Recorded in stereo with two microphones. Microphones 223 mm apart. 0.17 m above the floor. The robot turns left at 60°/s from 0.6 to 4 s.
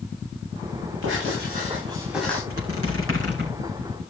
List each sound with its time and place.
1.0 s writing: 110° right, 9 m; by 2.4 s 170° left, 9 m
2.5 s a squeak: 75° right (ahead or behind), 5 m; by 3.6 s 40° right (ahead or behind), 5 m